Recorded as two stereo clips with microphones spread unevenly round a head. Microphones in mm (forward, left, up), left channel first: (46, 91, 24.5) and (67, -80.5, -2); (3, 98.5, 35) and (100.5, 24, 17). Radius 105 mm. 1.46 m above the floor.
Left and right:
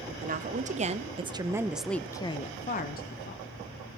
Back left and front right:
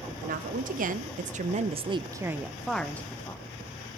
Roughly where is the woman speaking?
Ahead right.